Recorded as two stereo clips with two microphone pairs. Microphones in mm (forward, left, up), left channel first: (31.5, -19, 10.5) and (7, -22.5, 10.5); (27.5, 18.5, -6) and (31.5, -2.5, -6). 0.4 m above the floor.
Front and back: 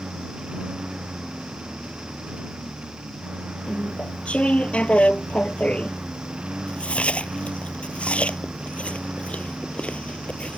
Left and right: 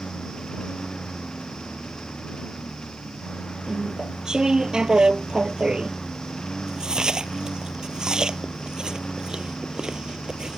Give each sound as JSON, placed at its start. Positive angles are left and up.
{"t": 0.0, "sound": "a lawn mower", "azimuth_deg": 150}
{"t": 3.7, "sound": "chewing", "azimuth_deg": -20}